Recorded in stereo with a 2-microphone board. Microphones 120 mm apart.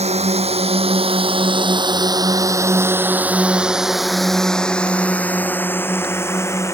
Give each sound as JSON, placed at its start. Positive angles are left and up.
{"t": 0.0, "sound": "a drone", "side_deg": -70}